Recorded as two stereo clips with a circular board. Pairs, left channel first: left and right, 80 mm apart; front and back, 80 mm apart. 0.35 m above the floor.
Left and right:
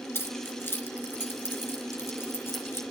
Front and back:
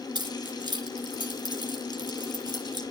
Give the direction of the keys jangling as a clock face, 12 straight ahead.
7 o'clock.